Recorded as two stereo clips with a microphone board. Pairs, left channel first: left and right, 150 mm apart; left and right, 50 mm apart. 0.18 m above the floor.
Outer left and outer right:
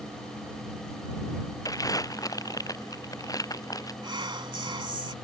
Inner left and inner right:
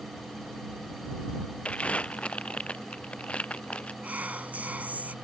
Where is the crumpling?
25° left (ahead or behind).